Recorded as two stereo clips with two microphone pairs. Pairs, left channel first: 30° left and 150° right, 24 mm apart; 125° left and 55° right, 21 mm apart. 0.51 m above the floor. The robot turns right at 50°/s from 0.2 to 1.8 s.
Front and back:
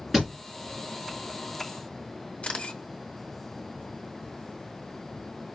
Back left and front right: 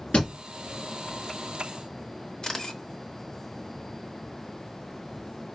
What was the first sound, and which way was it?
A thud, 125° left.